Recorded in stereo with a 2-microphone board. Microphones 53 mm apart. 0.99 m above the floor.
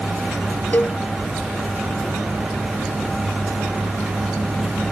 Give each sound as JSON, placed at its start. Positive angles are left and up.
{"t": 0.7, "sound": "a cowbell", "side_deg": 35}